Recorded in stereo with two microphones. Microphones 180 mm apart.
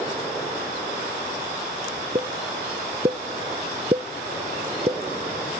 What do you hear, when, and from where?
2.1 s a pop: 35° right (ahead or behind), 0.7 m